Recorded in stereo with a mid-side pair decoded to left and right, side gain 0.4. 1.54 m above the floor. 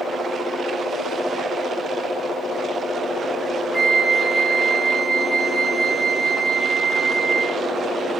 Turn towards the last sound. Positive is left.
turn(degrees=25)